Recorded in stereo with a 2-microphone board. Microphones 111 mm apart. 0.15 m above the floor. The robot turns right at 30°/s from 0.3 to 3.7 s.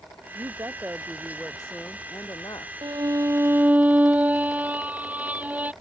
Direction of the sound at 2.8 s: 40° right (ahead or behind).